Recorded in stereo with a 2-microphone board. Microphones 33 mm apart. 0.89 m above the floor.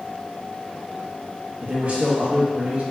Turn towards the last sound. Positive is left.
turn(degrees=-40)  # may be behind; listen again after turning